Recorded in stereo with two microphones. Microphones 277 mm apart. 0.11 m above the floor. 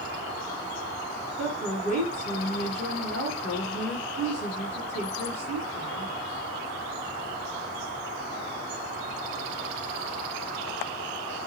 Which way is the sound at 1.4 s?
5° left (ahead or behind).